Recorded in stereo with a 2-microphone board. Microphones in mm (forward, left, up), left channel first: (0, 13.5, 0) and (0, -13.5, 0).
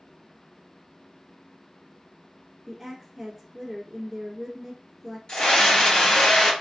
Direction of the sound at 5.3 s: 40° left (ahead or behind).